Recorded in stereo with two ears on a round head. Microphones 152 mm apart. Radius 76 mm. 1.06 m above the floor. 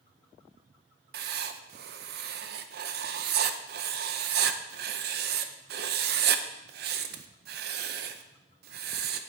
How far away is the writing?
About 0.6 m.